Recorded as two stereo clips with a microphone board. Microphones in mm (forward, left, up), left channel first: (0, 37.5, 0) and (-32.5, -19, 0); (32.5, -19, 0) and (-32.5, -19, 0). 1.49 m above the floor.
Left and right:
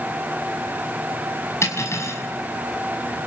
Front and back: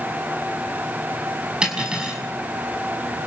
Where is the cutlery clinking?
105° left, 6 m.